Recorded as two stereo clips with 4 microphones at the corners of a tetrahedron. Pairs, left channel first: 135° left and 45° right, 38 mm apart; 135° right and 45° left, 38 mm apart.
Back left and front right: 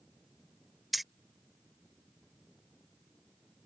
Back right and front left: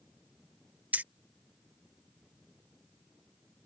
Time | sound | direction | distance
0.9 | keys jangling | 45° left | ?